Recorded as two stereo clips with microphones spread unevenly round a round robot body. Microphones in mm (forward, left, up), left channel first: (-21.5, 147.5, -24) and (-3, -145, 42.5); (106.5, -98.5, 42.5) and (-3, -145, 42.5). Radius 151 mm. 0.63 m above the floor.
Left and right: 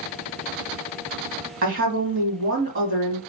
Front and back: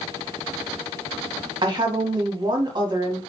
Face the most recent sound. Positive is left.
turn(degrees=-130)